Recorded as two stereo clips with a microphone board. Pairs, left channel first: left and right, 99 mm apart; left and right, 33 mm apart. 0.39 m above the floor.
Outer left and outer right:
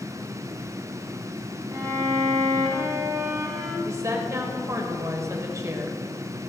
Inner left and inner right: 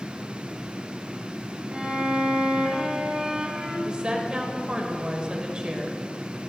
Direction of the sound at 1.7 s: 40° right (ahead or behind).